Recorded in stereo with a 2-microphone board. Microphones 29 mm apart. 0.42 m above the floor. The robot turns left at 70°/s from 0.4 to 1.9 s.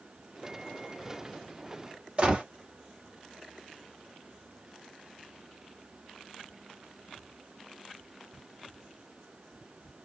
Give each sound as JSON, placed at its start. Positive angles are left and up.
{"t": 2.2, "sound": "a gunshot", "side_deg": -35, "distance_m": 1.6}